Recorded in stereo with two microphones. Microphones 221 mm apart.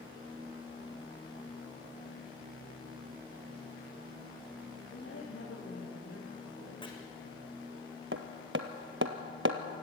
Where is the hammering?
65° right (ahead or behind), 1.4 m.